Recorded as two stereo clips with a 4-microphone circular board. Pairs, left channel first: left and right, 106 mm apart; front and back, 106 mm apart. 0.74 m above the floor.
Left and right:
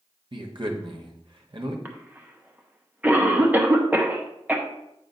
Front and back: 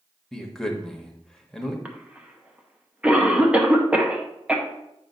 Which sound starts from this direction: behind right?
A cough, at 1.9 s.